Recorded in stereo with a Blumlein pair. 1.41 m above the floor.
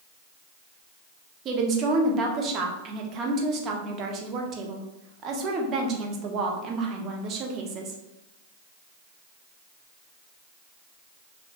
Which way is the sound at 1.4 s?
30° right.